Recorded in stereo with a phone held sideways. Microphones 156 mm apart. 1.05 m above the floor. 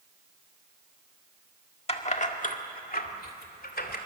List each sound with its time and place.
1.9 s keys jangling: 40° left (ahead or behind), 1.6 m; by 4.0 s 90° left, 2.5 m